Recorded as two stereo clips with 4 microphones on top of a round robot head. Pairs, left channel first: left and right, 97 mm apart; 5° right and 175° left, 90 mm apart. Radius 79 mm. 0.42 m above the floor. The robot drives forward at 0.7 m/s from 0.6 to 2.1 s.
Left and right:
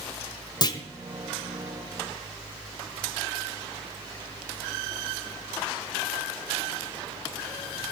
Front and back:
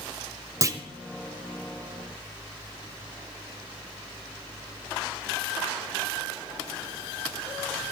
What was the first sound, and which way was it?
A clunk, 130° left.